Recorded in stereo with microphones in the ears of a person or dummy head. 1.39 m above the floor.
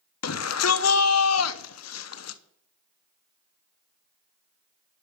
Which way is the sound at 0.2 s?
75° left (ahead or behind).